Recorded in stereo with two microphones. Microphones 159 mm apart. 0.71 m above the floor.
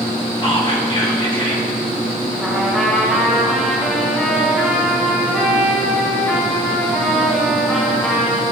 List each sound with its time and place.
0.4 s whispering: 35° left (ahead or behind), 2.0 m
2.4 s a trumpet: centre (ahead or behind), 2.5 m